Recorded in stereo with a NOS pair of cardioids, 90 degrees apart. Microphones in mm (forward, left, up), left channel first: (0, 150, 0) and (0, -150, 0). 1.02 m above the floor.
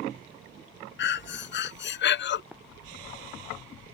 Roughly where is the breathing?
Ahead left.